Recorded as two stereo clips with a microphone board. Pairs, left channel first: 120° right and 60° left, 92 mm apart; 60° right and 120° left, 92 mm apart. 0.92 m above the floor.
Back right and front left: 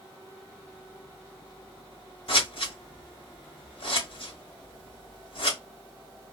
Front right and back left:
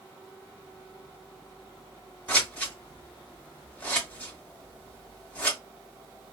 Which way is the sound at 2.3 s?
130° right.